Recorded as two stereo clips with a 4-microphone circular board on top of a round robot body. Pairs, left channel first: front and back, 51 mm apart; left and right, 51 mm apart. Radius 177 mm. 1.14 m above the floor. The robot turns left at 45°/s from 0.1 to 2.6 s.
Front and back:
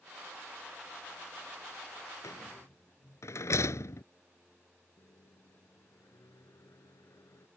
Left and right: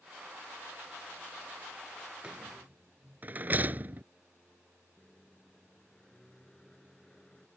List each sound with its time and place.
2.2 s a rattle: 15° right; by 4.0 s 30° right
5.0 s a microwave: 10° left